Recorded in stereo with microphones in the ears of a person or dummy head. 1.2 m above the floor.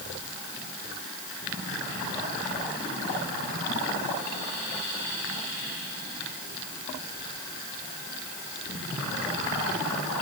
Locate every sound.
Only background noise.